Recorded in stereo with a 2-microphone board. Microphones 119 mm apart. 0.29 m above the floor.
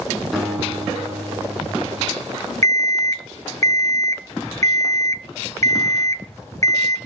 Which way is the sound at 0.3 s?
Centre (ahead or behind).